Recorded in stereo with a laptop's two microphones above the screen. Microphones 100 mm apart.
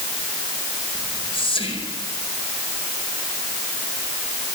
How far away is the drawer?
No drawer in this recording.